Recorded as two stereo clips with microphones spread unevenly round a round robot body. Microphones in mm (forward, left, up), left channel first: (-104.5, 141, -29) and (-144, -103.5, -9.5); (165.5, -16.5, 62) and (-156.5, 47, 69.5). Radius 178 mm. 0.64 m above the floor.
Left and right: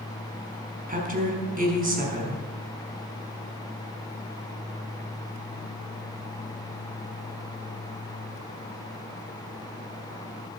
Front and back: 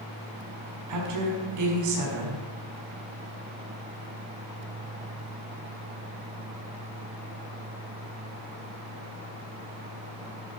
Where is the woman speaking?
155° right, 5 m.